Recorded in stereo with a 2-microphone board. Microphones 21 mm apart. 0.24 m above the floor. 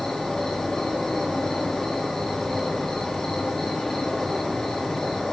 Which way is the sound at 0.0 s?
20° left (ahead or behind).